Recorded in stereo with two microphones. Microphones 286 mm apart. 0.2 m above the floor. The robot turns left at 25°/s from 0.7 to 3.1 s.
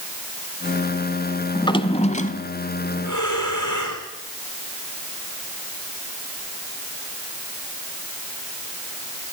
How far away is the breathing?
About 5 m.